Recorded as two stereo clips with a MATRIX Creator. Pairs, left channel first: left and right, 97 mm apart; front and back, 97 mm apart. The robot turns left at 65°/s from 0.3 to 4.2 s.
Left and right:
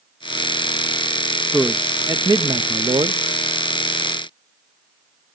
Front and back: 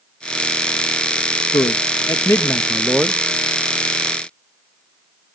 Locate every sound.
1.5 s a man speaking: straight ahead, 0.6 m; by 3.2 s 110° right, 0.6 m